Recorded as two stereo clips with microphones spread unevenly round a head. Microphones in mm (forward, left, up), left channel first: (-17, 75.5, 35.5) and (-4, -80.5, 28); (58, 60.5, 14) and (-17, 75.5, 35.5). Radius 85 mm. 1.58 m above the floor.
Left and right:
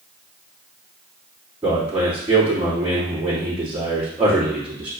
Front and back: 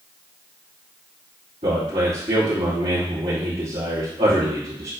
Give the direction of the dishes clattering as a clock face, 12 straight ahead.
I don't hear dishes clattering.